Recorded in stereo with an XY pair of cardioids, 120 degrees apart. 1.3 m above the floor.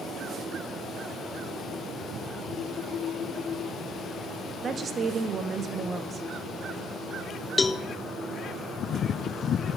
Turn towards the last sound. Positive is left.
turn(degrees=20)